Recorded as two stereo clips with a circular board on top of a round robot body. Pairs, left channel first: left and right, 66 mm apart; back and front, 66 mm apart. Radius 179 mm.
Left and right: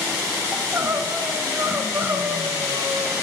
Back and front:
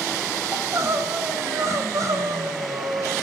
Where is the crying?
40° right, 1.7 m.